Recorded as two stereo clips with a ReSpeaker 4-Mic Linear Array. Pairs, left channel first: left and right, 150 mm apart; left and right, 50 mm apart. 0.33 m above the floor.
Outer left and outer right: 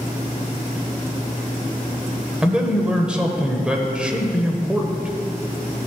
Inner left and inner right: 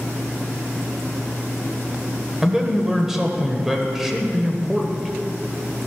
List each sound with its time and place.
2.4 s a man speaking: 5° right (ahead or behind), 1.2 m